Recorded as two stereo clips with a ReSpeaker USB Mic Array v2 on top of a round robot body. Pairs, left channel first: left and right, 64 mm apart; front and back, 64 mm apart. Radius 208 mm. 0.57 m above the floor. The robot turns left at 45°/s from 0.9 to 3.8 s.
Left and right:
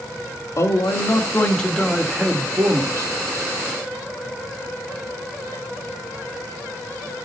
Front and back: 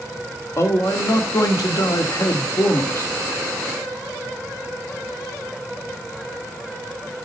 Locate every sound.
0.6 s a man speaking: 45° left, 1.7 m; by 3.1 s 55° right, 1.7 m